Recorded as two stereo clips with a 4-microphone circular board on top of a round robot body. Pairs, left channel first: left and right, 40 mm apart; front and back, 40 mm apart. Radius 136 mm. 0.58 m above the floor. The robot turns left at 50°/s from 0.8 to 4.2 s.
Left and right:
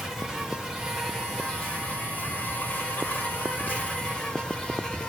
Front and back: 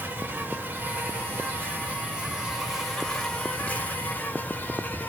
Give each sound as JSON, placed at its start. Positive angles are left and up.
{"t": 0.0, "sound": "an insect", "azimuth_deg": -175, "distance_m": 3.0}